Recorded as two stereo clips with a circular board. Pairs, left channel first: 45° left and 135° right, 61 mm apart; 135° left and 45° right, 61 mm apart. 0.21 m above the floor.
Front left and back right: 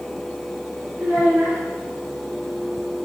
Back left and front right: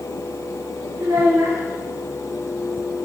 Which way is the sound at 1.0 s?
75° right.